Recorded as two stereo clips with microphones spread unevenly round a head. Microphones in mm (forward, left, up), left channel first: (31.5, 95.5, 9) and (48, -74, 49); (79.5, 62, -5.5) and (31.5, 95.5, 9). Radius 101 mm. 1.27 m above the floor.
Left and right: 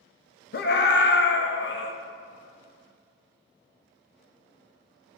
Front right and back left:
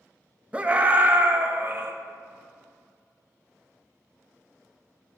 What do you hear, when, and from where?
0.5 s a scream: 75° left, 1.6 m; by 1.9 s 95° left, 2 m